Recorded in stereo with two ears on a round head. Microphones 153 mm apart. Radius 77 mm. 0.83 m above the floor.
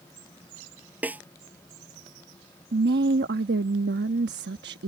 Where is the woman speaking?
65° right (ahead or behind).